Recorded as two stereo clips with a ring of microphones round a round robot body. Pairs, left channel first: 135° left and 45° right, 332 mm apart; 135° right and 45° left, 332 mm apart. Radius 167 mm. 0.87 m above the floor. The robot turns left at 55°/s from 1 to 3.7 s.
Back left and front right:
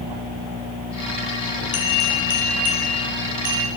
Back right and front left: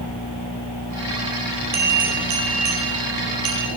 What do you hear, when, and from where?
1.7 s a bell: 110° left, 6.5 m; by 3.7 s straight ahead, 6.5 m